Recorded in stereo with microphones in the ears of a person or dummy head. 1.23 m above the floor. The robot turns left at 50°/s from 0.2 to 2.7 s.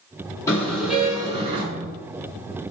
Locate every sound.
0.5 s a car horn: 20° left, 7 m; by 1.6 s 40° right, 7 m